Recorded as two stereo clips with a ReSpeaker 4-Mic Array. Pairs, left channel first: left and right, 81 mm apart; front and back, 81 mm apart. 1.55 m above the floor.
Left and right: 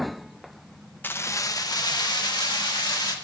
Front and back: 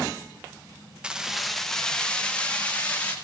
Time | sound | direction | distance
1.0 | keys jangling | 115° left | 0.7 m